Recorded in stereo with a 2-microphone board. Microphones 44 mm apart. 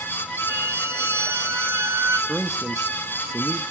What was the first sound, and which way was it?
A violin, 70° right (ahead or behind).